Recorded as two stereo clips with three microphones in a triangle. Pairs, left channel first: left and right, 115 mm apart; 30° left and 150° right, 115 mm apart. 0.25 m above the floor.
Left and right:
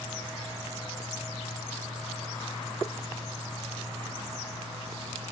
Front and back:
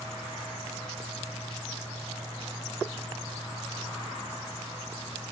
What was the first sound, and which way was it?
Only background noise.